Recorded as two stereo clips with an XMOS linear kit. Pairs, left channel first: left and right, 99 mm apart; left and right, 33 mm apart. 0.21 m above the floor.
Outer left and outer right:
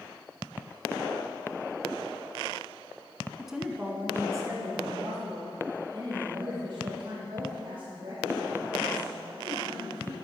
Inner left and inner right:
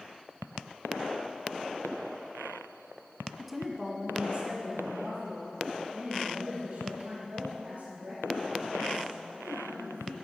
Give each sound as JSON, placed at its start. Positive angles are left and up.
{"t": 3.4, "sound": "a woman speaking", "side_deg": 0, "distance_m": 1.6}